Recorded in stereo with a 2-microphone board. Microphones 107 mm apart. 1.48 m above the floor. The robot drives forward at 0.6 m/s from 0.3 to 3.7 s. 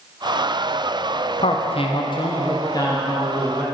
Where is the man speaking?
65° left (ahead or behind), 0.7 m; by 3.6 s 25° left (ahead or behind), 1.5 m.